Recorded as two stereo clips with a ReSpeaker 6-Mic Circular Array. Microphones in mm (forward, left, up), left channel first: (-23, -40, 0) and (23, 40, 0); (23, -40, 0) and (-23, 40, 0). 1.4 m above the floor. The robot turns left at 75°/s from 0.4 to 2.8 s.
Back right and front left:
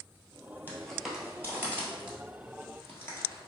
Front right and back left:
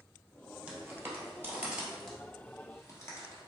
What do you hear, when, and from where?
0.7 s footsteps: 175° right, 1.6 m; by 3.5 s 85° right, 1.7 m